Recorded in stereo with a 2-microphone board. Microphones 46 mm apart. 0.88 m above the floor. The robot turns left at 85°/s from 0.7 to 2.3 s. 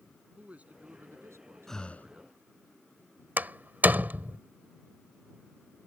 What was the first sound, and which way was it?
A man speaking, 35° right.